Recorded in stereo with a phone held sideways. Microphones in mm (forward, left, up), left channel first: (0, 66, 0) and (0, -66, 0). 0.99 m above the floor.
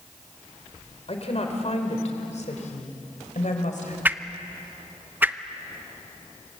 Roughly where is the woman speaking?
Left.